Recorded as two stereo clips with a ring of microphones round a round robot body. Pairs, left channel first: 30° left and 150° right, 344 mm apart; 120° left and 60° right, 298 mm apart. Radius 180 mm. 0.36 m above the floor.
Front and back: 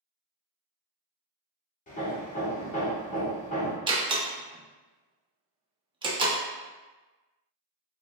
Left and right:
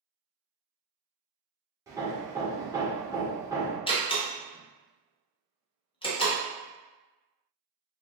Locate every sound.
1.9 s hammering: 5° left, 1.0 m
3.9 s a door slam: 160° left, 0.7 m